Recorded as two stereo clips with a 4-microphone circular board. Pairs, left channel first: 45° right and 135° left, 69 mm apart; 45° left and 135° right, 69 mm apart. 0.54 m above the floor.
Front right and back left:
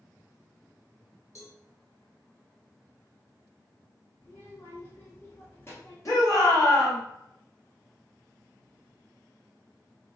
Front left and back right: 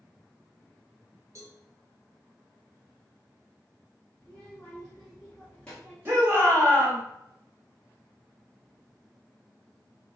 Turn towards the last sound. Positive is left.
turn(degrees=-80)